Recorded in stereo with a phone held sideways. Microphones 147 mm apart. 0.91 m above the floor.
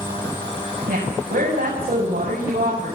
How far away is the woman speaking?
About 7.5 m.